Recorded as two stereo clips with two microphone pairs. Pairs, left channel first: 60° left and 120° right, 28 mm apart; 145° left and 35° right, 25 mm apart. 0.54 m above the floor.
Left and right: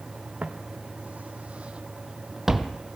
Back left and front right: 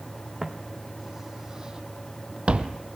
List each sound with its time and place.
0.4 s footsteps: 120° right, 1.9 m; by 2.8 s 30° right, 1.1 m